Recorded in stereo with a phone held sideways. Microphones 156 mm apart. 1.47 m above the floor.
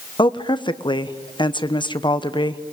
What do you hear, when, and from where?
0.2 s a woman speaking: 30° left (ahead or behind), 1.0 m